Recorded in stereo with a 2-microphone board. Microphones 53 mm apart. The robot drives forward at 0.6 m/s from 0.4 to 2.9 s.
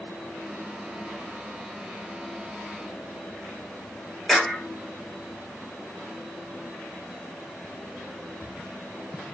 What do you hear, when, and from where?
4.3 s a clap: 10° left (ahead or behind), 4 m